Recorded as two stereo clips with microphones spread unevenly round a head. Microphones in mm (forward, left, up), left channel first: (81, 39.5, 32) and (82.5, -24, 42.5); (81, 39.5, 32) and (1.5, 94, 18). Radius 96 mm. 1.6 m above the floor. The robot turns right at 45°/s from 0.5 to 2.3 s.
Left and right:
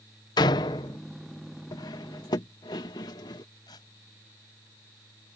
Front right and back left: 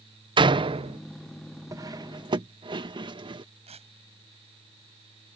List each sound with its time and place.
0.4 s a door slam: 115° left; by 1.0 s 140° left
1.7 s cutlery clinking: 95° left; by 3.5 s 120° left
3.7 s tearing paper: 145° left